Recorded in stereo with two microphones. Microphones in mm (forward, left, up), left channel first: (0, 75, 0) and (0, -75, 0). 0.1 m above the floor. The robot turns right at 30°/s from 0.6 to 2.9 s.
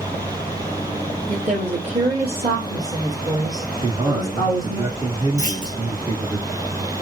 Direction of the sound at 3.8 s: 30° right (ahead or behind).